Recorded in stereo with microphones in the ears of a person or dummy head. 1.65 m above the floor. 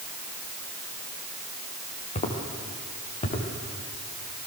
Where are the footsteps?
35° left (ahead or behind), 5 m.